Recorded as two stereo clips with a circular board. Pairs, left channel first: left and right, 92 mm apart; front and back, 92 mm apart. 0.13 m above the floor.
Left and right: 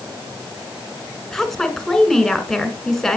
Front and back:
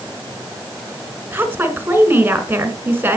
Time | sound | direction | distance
1.3 | a woman speaking | 170° left | 1.4 m